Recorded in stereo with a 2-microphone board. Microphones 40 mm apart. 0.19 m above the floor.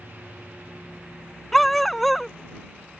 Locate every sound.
1.5 s a dog barking: 5° left (ahead or behind)